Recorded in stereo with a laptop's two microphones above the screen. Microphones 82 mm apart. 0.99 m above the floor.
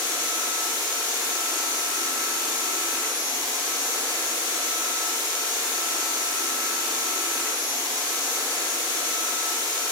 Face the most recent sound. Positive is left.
turn(degrees=-70)  # may be behind; listen again after turning